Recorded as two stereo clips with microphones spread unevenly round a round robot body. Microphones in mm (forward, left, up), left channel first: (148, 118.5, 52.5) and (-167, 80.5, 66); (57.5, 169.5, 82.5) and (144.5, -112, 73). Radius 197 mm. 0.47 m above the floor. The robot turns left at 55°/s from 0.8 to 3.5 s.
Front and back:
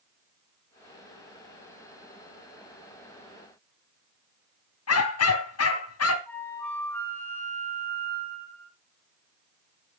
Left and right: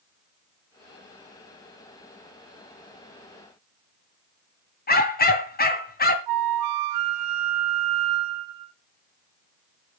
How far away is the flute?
About 0.7 m.